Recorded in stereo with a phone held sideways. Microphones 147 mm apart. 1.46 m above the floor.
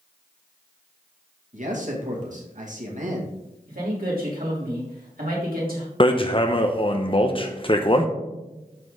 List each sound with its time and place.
1.5 s a man speaking: 60° right (ahead or behind), 2.5 m
3.7 s a man speaking: 80° right, 3.5 m
6.0 s hammering: 35° left (ahead or behind), 0.8 m